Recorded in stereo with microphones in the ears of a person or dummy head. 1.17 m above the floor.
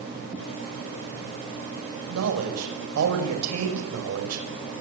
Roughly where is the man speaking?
Right.